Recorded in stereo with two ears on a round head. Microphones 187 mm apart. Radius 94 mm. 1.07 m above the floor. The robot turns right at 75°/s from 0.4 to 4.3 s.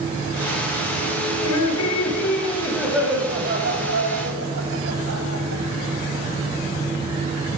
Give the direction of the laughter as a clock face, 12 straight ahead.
10 o'clock.